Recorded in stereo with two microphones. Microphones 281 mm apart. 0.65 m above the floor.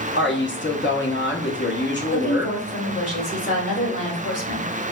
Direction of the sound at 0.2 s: 40° left (ahead or behind).